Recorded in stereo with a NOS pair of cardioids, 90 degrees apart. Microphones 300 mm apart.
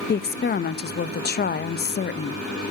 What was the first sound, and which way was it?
A woman speaking, 35° left.